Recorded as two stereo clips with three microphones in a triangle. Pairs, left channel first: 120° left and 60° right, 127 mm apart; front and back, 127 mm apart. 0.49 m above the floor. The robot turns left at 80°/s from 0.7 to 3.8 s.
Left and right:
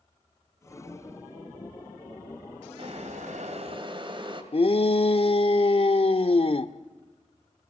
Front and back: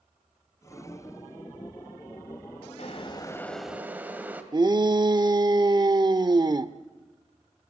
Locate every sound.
2.8 s boiling: 25° right, 2.5 m; by 4.4 s 105° right, 2.5 m
4.5 s a shout: 135° left, 1.0 m